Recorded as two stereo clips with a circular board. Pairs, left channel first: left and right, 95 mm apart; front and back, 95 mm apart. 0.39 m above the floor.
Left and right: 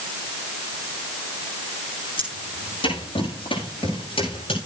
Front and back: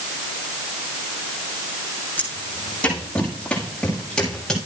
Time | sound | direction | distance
2.2 | footsteps | 70° left | 7 m